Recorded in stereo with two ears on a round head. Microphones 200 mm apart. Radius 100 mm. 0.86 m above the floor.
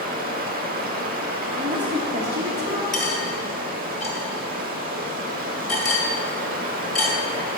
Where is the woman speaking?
20° right (ahead or behind), 1.1 m.